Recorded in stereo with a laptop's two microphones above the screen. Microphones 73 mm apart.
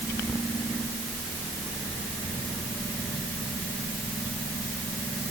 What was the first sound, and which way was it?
Only background noise.